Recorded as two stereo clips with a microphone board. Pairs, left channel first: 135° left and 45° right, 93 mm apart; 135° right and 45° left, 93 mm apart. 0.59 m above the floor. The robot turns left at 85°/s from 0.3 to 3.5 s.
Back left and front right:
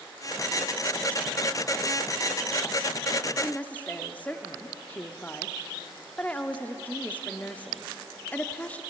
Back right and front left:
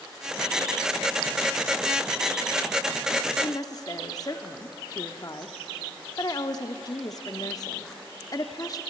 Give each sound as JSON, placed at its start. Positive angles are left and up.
{"t": 3.4, "sound": "a woman speaking", "azimuth_deg": -150, "distance_m": 0.9}